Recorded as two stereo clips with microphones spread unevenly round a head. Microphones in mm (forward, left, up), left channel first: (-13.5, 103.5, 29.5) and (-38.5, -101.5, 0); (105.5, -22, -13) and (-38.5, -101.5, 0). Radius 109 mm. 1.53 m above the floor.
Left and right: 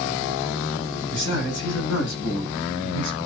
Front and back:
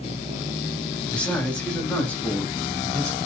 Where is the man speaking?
115° left, 7 m.